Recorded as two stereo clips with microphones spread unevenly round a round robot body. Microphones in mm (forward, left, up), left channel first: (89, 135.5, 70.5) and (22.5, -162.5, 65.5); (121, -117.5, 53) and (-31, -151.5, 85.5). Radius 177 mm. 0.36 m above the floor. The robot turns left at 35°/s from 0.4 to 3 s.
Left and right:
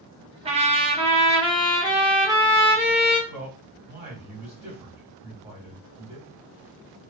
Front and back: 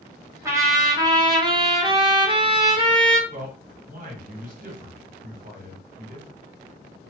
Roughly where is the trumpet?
Right.